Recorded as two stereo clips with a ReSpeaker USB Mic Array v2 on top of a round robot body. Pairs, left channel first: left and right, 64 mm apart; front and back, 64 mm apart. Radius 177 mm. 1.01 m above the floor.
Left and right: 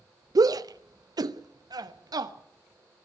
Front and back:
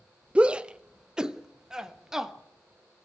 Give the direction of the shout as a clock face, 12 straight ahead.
4 o'clock.